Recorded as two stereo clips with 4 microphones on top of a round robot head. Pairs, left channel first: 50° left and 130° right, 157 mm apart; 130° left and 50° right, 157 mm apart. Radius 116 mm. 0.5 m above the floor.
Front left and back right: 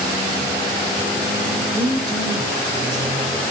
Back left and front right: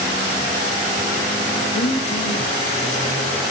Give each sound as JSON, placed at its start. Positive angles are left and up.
{"t": 1.7, "sound": "a woman speaking", "azimuth_deg": 170, "distance_m": 2.5}